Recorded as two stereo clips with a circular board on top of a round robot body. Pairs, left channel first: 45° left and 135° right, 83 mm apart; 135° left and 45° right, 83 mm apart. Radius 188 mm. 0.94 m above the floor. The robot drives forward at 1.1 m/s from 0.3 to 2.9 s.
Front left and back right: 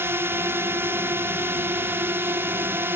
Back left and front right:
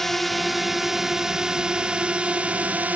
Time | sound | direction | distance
0.0 | a drone | 140° right | ?